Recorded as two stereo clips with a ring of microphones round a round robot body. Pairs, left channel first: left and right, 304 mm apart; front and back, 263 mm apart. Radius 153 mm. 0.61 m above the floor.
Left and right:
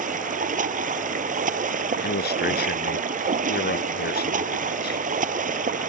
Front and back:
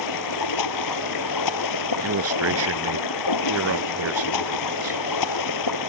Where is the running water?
25° right.